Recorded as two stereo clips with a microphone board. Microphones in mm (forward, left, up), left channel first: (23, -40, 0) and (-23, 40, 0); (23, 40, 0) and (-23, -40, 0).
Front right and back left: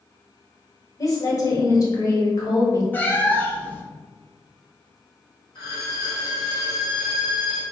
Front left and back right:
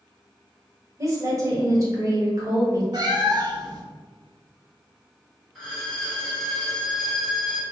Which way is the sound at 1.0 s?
85° right.